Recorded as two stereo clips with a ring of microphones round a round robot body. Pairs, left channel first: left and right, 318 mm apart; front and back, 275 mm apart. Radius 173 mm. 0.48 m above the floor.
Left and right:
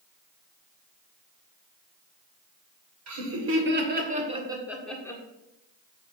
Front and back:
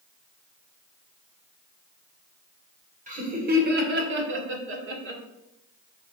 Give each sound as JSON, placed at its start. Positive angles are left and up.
{"t": 3.1, "sound": "laughter", "azimuth_deg": -120, "distance_m": 2.5}